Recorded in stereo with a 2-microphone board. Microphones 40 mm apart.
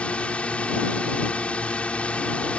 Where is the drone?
30° left (ahead or behind).